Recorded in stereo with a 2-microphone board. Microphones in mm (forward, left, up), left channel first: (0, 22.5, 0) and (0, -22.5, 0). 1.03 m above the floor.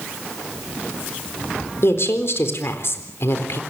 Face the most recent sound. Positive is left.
turn(degrees=65)  # may be behind; listen again after turning